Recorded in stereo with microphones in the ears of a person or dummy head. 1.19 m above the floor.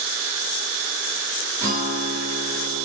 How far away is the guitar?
About 0.9 m.